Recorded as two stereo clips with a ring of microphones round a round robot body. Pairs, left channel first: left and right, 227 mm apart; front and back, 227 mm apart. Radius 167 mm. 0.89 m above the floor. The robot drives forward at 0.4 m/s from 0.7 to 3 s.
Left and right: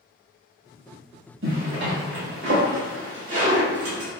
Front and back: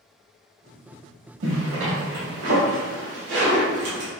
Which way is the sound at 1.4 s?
140° right.